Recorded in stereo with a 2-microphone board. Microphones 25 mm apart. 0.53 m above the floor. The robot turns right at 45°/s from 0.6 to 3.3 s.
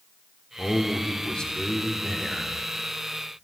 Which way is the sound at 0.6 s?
65° left.